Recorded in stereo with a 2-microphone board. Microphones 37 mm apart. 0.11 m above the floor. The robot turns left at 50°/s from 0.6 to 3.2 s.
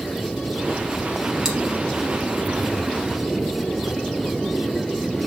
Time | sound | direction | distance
1.4 | chewing | 15° right (ahead or behind) | 3 m